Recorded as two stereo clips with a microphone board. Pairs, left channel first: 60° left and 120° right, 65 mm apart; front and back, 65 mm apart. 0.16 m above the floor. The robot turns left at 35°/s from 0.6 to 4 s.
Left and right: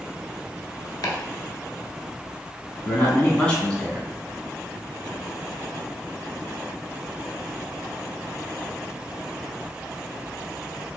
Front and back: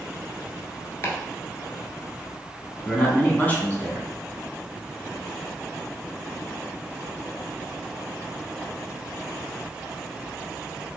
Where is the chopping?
50° left, 0.8 m; by 1.1 s 45° left, 0.8 m.